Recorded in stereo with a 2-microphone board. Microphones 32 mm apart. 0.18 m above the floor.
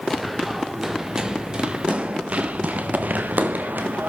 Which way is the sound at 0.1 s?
Centre (ahead or behind).